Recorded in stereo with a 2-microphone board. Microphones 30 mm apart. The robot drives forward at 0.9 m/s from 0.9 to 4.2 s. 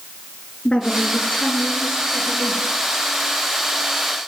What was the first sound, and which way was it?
A woman speaking, 40° left (ahead or behind).